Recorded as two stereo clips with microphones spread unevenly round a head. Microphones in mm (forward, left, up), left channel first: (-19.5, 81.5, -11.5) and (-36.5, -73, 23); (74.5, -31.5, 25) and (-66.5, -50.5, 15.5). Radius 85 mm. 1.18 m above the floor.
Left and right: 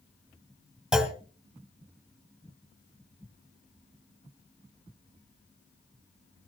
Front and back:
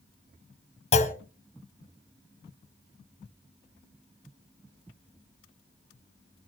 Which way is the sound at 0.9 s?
20° right.